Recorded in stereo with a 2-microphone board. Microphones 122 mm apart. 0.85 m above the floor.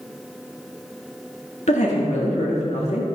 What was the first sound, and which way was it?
A woman speaking, 65° left (ahead or behind).